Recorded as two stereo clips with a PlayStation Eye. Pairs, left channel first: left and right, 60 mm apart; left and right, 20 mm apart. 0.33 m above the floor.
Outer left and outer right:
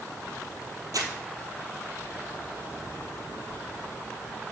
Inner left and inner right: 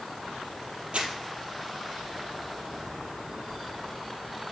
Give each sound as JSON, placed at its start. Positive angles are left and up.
{"t": 0.9, "sound": "crumpling", "side_deg": -80, "distance_m": 1.6}